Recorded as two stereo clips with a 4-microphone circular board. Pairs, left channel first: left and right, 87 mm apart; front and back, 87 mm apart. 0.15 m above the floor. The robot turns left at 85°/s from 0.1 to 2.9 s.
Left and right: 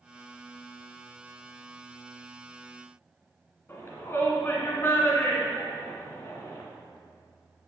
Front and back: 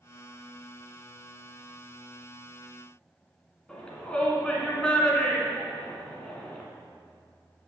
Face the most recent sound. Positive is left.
turn(degrees=70)